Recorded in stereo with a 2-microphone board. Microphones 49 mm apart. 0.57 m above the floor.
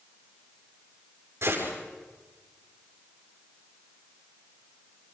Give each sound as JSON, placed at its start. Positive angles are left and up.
{"t": 1.4, "sound": "a gunshot", "side_deg": -60, "distance_m": 7.0}